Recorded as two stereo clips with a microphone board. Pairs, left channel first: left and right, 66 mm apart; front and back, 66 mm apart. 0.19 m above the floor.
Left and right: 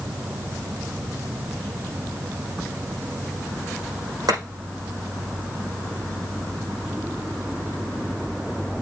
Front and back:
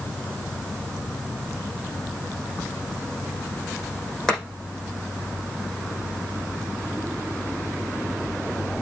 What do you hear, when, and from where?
4.3 s chopping: 80° right, 5.5 m